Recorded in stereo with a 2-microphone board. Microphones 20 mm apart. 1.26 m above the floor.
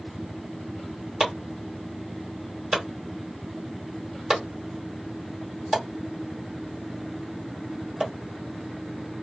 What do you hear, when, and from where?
1.2 s chopping: 50° right (ahead or behind), 1.4 m